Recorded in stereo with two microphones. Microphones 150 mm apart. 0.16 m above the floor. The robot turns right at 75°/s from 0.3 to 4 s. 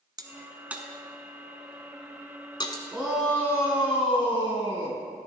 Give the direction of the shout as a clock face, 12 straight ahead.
12 o'clock.